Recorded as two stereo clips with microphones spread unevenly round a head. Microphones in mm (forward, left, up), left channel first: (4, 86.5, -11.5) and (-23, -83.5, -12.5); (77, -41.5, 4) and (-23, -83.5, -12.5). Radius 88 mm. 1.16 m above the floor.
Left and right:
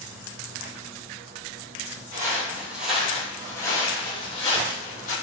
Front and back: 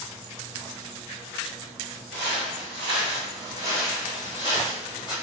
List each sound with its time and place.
2.1 s footsteps: 165° right, 1.6 m; by 5.1 s 105° left, 1.8 m